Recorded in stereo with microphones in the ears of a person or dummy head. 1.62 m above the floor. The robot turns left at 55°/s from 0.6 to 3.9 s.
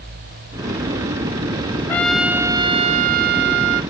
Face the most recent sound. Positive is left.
turn(degrees=-100)